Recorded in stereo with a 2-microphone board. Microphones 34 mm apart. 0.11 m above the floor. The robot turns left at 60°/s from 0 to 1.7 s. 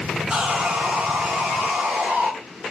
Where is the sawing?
25° right, 1.0 m; by 2.3 s 110° right, 1.0 m.